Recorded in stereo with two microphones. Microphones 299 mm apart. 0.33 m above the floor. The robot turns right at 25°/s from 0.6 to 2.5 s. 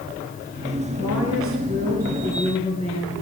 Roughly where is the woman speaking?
Ahead right.